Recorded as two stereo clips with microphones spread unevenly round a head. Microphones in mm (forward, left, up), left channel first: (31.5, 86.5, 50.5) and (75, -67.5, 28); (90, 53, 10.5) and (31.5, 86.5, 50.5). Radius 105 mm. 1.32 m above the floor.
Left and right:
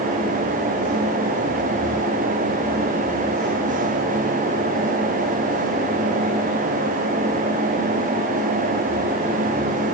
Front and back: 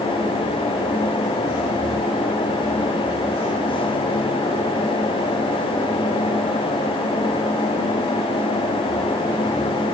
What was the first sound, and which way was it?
Only background noise.